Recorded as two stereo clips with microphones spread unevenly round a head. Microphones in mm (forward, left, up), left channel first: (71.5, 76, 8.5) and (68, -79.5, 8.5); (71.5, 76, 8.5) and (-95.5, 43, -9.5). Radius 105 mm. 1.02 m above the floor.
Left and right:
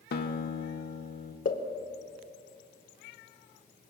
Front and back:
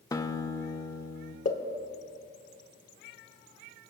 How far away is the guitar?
About 1.2 m.